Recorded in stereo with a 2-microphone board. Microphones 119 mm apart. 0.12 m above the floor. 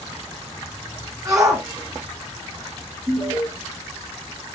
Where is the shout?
30° right (ahead or behind), 1.2 m.